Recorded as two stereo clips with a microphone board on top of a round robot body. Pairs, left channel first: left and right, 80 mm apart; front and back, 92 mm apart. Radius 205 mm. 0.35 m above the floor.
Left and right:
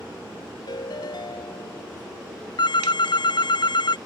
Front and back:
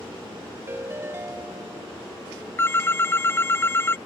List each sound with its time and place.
0.7 s a ringtone: 115° left
2.6 s a phone ringing: 65° left